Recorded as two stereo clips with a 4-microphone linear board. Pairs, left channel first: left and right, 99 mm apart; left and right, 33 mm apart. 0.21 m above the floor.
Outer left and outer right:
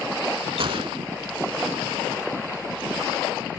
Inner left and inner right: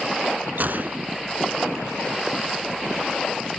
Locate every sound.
0.6 s a gunshot: 60° right (ahead or behind), 0.6 m